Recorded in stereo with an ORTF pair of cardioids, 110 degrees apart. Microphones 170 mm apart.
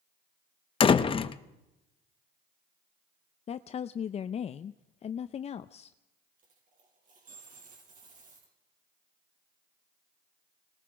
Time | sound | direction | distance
0.8 | a door slam | 30° left | 0.9 m
3.5 | a woman speaking | 40° left | 0.6 m
6.4 | a dropped coin | 50° right | 6 m